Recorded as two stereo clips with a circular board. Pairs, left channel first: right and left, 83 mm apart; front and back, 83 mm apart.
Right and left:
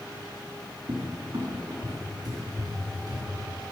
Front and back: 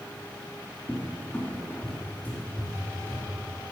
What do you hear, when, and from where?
0.9 s a cupboard door: 65° left, 2.5 m